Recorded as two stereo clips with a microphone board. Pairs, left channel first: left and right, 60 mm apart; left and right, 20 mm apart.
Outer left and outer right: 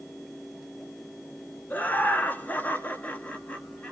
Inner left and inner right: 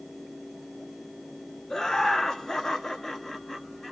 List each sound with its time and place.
1.7 s laughter: 30° left (ahead or behind), 1.4 m; by 3.9 s 20° left (ahead or behind), 1.7 m